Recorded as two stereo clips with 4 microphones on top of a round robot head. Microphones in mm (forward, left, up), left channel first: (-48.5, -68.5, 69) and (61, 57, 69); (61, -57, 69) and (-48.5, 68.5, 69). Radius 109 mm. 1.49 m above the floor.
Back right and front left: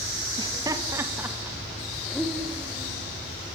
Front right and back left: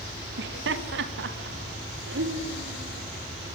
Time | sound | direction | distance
0.4 | laughter | 115° left | 2.5 m